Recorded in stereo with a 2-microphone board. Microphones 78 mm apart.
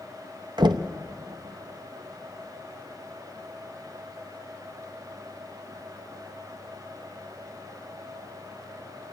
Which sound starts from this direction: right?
Knocking, at 0.6 s.